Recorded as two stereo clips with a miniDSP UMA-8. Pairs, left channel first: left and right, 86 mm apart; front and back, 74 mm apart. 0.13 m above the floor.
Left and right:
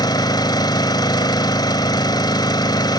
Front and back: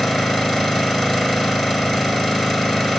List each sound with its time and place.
0.0 s an engine running: 80° left, 1.4 m